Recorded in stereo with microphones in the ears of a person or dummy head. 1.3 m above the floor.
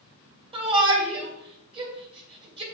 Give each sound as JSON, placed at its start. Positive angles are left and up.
{"t": 0.5, "sound": "a shout", "side_deg": -25, "distance_m": 2.5}